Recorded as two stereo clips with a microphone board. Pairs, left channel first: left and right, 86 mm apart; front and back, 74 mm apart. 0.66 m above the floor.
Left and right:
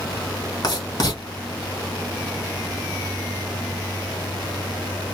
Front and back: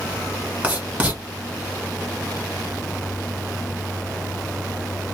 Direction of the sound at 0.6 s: 110° left.